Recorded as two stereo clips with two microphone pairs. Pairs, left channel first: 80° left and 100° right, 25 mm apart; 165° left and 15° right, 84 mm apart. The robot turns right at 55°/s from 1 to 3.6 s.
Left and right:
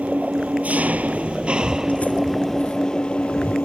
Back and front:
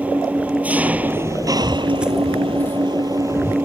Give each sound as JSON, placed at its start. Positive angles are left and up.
{"t": 0.0, "sound": "an engine running", "azimuth_deg": -90}
{"t": 1.6, "sound": "footsteps", "azimuth_deg": 40}